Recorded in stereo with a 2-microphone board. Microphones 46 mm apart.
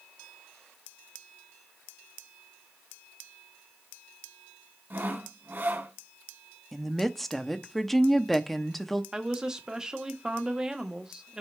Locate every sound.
4.9 s sawing: 50° right (ahead or behind), 1.4 m
6.7 s a woman speaking: centre (ahead or behind), 0.7 m
9.1 s a woman speaking: 10° right (ahead or behind), 1.0 m